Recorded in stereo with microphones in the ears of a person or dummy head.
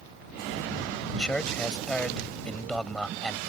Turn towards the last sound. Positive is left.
turn(degrees=0)  # may be behind; listen again after turning